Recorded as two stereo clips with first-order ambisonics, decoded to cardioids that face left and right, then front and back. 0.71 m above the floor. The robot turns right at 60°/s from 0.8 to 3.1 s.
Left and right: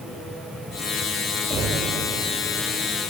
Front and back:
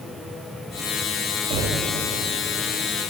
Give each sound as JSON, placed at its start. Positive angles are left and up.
{"t": 1.5, "sound": "knocking", "azimuth_deg": -155, "distance_m": 2.5}